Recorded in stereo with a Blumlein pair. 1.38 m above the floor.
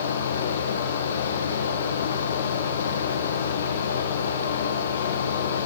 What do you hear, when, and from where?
0.0 s a fan: 65° left, 1.1 m